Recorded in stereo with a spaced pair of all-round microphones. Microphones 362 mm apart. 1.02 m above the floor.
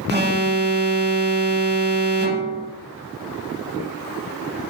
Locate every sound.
0.1 s an alarm: 25° right (ahead or behind), 2 m